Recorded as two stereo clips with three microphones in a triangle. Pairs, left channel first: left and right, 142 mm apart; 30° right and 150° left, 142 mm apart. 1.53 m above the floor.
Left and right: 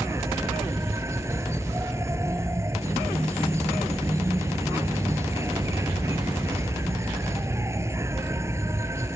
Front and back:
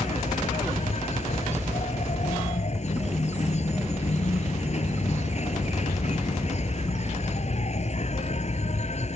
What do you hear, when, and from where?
0.0 s an insect: 25° right